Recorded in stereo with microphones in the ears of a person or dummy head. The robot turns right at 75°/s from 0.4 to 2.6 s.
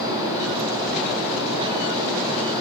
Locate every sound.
Only background noise.